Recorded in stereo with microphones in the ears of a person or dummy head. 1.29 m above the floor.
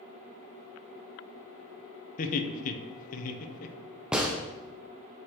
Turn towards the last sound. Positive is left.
turn(degrees=-5)  # may be behind; listen again after turning